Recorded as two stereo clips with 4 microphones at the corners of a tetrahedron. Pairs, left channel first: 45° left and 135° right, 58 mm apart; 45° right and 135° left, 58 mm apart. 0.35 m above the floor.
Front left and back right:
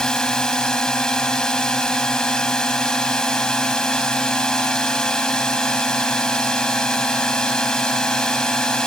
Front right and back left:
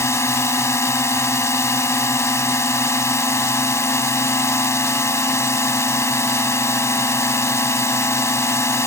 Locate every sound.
0.0 s a drone: 30° right